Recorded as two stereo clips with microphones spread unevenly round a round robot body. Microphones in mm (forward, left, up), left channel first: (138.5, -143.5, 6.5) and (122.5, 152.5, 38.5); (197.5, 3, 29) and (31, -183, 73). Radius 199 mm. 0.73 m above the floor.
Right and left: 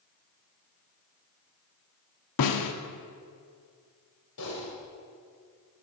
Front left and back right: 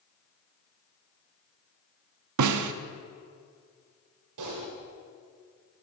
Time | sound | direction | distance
2.4 | a snare drum | 125° right | 0.6 m
4.4 | typing on a keyboard | 140° right | 1.7 m